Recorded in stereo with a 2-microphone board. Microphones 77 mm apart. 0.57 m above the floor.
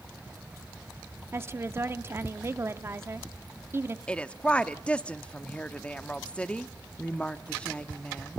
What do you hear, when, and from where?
1.3 s a woman speaking: 30° right (ahead or behind), 0.8 m
4.1 s a woman speaking: 15° left (ahead or behind), 0.7 m